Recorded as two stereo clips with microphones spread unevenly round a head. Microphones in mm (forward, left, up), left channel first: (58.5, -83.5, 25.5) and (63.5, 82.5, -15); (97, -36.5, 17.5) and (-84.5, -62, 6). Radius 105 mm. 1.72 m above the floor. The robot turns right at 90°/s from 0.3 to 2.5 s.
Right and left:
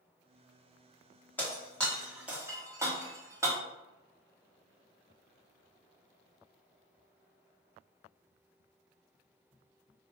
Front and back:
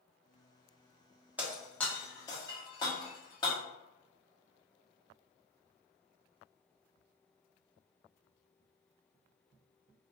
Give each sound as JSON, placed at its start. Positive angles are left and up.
{"t": 1.4, "sound": "breaking glass", "azimuth_deg": -95, "distance_m": 1.1}